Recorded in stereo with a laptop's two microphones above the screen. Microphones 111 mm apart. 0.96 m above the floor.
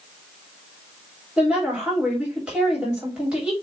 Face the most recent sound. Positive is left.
turn(degrees=-10)  # may be behind; listen again after turning